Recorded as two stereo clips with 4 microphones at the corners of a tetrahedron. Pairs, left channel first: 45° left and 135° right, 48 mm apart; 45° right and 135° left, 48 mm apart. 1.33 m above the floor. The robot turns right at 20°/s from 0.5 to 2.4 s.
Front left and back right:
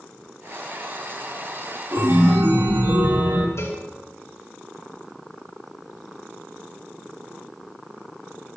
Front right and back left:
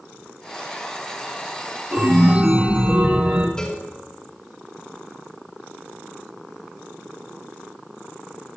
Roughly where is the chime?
Behind.